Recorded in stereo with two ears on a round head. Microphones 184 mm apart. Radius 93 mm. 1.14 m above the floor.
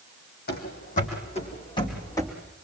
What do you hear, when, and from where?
0.5 s running footsteps: 50° left (ahead or behind), 3.5 m; by 2.3 s 15° left (ahead or behind), 4 m